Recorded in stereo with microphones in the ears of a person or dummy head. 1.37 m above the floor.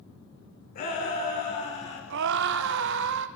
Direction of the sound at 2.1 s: 65° right (ahead or behind).